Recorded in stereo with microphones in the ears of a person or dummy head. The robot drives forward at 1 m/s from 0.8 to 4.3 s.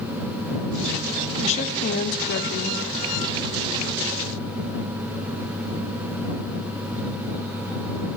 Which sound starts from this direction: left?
A woman speaking, at 1.4 s.